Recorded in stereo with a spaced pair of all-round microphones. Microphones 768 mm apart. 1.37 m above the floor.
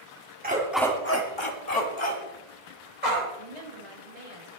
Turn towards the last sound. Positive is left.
turn(degrees=-50)  # may be behind; listen again after turning